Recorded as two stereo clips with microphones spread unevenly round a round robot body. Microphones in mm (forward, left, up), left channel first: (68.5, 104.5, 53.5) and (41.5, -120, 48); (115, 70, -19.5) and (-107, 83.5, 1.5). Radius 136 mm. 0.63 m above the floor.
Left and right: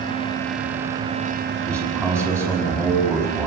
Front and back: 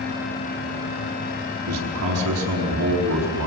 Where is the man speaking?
170° left, 5.5 m.